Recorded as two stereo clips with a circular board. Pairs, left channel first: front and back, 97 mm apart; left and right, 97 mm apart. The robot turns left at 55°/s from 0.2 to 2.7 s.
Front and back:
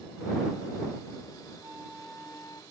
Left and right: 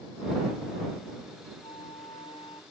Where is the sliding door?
No sliding door in this recording.